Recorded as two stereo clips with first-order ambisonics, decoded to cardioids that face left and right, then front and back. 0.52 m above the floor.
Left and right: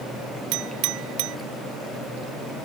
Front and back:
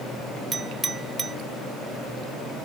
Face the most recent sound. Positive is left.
turn(degrees=-105)